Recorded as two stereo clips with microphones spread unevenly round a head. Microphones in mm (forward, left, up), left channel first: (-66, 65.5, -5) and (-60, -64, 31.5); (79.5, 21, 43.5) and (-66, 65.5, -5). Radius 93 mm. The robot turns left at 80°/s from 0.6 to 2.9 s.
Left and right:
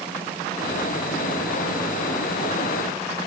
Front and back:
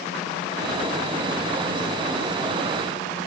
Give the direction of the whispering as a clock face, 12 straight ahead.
I don't hear whispering.